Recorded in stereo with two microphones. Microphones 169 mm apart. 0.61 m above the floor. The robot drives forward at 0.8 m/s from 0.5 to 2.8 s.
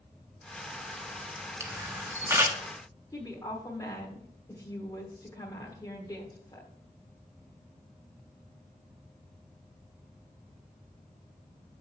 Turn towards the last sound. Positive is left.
turn(degrees=20)  # may be behind; listen again after turning